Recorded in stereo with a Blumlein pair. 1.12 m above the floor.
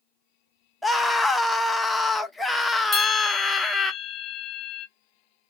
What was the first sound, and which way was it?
A scream, 5° left.